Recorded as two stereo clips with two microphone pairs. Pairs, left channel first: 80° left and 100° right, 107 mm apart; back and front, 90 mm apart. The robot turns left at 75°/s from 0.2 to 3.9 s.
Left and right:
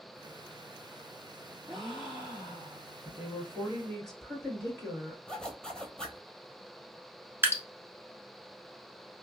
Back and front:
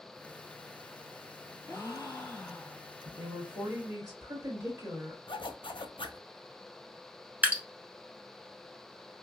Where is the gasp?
Straight behind, 1.5 m; by 3.0 s 85° left, 1.5 m.